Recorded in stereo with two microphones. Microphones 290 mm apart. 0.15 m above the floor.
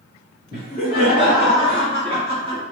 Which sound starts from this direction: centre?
Laughter, at 0.5 s.